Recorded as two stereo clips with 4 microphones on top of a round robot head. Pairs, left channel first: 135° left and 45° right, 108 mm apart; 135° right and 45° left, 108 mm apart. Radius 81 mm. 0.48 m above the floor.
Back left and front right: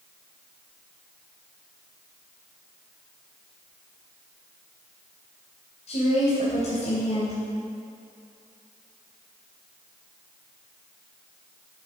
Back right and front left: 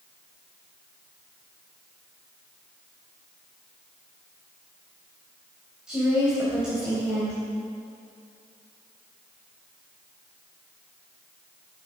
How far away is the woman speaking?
About 3.5 m.